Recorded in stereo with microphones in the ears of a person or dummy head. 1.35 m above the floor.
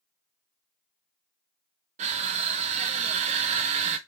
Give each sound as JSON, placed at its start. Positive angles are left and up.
{"t": 2.0, "sound": "crushing", "side_deg": -40, "distance_m": 0.5}